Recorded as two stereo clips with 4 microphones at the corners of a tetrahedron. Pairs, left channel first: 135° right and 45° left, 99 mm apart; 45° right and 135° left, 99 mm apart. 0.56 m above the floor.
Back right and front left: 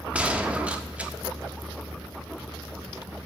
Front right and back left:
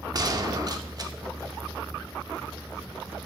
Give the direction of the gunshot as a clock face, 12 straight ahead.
8 o'clock.